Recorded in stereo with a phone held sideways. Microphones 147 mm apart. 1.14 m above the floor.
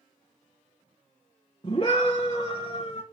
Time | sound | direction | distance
1.6 | a scream | 35° left (ahead or behind) | 1.1 m